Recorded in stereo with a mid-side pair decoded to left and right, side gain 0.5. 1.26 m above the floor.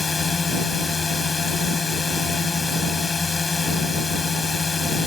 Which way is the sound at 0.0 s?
30° left.